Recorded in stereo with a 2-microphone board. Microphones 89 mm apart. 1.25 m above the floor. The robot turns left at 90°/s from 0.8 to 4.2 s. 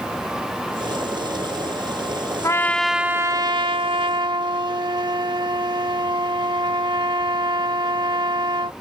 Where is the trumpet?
40° left; by 8.7 s 120° right.